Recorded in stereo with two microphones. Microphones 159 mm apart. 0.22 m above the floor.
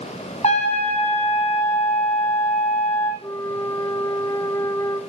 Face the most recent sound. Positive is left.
turn(degrees=20)  # may be behind; listen again after turning